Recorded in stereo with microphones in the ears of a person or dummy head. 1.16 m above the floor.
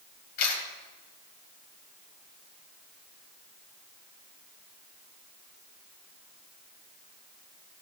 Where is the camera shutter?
45° left (ahead or behind), 3.5 m.